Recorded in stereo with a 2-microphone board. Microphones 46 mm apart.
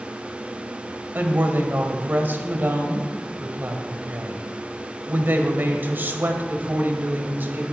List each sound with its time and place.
1.1 s a woman speaking: 45° right (ahead or behind), 2 m